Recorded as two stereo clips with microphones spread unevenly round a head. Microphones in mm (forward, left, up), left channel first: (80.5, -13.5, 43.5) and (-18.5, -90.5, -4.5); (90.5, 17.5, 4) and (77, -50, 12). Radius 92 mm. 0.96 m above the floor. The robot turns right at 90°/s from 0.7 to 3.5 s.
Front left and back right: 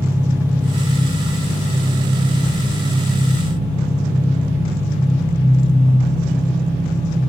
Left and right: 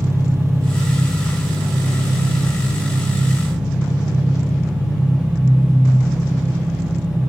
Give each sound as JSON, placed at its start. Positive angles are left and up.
{"t": 0.0, "sound": "an engine running", "azimuth_deg": -60, "distance_m": 1.4}